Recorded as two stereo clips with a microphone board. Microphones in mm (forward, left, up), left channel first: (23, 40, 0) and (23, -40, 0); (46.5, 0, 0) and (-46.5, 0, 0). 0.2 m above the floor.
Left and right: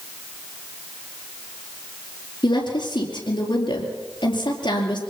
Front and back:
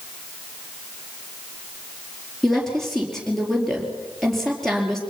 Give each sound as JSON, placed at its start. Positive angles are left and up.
{"t": 2.4, "sound": "a woman speaking", "azimuth_deg": 90, "distance_m": 5.0}